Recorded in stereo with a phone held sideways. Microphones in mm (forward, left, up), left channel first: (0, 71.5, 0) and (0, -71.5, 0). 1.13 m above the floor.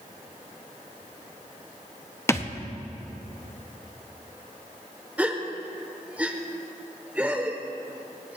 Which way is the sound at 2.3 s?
20° left (ahead or behind).